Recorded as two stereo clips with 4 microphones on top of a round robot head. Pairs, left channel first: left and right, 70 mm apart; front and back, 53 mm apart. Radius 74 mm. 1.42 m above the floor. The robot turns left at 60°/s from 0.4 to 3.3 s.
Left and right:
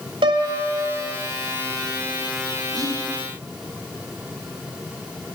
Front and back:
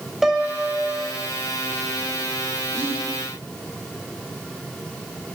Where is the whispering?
125° right, 3 m; by 3.0 s 140° right, 3 m.